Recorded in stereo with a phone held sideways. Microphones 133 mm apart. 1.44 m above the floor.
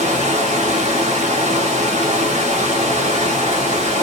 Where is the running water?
55° right (ahead or behind), 1.1 m.